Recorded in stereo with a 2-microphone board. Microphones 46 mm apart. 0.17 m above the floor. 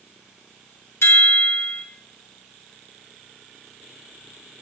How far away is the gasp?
I don't hear a gasp.